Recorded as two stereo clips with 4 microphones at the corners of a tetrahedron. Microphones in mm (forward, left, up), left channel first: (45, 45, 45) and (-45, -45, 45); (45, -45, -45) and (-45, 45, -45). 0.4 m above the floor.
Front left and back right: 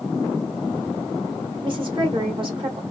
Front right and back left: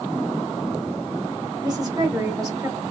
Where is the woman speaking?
175° right, 1.3 m.